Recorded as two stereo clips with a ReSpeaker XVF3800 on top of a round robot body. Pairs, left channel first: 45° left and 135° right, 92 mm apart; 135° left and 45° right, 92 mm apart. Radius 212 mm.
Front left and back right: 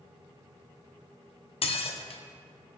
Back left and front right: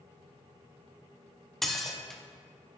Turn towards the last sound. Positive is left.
turn(degrees=45)